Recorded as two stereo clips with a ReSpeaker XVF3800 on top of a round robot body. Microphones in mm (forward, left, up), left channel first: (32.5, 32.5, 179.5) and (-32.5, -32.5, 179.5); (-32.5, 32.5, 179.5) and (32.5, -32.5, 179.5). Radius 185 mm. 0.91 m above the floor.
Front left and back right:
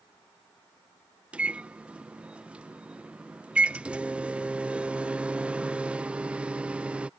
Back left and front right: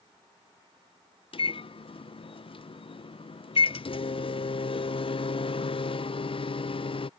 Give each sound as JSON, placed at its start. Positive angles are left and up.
{"t": 1.3, "sound": "a microwave", "azimuth_deg": 145}